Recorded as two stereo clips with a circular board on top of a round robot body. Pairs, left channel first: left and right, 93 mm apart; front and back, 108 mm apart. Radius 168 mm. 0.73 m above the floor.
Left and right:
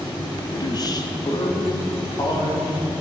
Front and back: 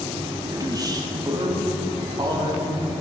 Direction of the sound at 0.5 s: 125° left.